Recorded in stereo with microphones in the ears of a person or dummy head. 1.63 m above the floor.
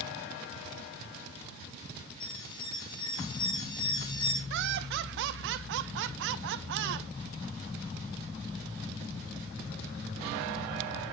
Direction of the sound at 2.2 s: 30° left (ahead or behind).